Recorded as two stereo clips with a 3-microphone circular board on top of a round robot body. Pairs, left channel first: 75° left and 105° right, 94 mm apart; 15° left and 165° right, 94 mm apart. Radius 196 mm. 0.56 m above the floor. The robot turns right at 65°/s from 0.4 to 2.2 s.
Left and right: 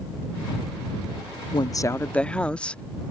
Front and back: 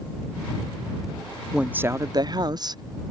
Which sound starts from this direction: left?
A woman speaking, at 1.5 s.